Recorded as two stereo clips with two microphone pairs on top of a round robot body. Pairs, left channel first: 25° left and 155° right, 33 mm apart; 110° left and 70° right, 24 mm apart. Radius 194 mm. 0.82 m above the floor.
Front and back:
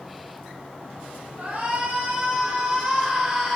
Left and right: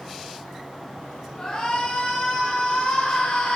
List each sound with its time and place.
1.4 s a shout: 170° left, 5 m; by 3.6 s 130° left, 3 m